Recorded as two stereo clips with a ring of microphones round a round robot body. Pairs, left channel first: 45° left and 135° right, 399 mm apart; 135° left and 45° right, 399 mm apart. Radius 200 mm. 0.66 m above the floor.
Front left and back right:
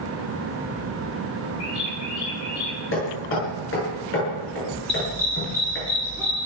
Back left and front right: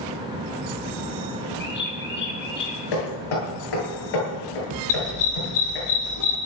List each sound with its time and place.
1.6 s a bird: 70° left, 7 m
2.9 s hammering: 105° left, 9.5 m
4.9 s a dog barking: 130° left, 6.5 m